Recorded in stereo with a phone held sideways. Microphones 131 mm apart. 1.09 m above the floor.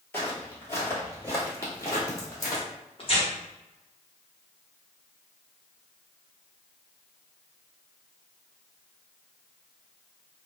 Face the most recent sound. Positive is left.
turn(degrees=45)  # may be behind; listen again after turning